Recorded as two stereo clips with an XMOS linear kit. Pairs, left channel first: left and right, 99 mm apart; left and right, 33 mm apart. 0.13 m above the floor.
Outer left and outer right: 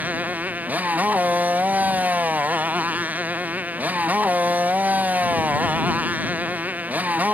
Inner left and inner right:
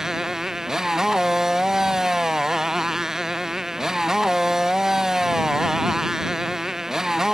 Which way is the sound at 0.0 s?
15° right (ahead or behind).